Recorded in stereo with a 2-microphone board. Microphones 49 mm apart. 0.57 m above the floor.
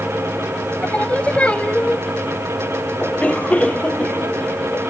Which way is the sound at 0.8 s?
25° left (ahead or behind).